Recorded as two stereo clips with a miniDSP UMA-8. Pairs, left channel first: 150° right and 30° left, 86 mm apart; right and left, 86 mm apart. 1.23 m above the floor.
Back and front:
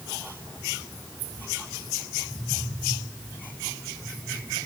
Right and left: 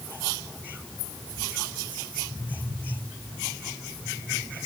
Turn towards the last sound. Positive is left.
No sound to turn to.